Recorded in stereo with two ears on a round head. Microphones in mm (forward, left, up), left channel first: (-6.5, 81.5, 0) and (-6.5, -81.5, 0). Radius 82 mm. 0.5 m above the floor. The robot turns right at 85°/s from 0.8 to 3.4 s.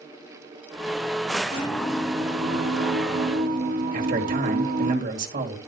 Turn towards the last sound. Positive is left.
turn(degrees=-45)  # may be behind; listen again after turning